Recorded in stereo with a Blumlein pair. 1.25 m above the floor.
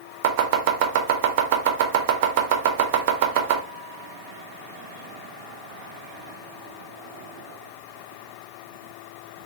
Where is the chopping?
50° right, 0.5 m.